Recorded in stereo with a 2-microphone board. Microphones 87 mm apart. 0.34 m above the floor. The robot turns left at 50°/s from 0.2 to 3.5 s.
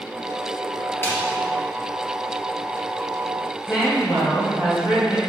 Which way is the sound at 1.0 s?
30° left (ahead or behind).